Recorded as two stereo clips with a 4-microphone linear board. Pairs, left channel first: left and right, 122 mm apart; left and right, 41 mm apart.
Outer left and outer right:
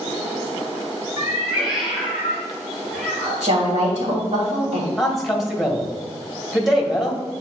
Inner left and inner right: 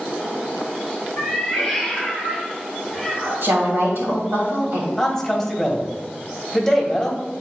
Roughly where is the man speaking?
Centre.